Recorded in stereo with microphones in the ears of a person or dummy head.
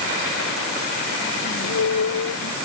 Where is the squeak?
80° left.